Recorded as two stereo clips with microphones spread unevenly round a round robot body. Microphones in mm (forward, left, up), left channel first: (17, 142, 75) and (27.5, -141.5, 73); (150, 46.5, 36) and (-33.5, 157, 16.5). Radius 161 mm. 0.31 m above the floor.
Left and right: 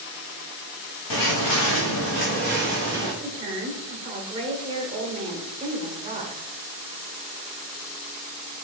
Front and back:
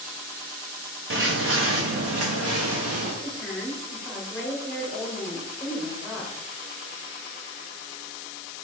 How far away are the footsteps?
About 1.4 m.